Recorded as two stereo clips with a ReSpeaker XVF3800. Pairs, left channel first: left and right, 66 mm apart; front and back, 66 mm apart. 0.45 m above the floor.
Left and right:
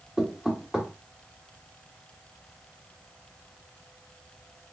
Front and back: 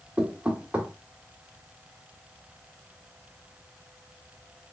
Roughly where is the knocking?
Behind right.